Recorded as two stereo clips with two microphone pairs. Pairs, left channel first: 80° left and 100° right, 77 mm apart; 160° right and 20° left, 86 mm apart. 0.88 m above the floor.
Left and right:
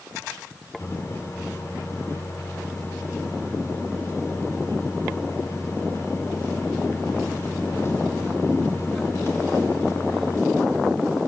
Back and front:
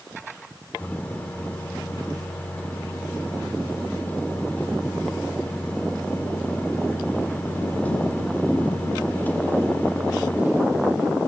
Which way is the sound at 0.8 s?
130° left.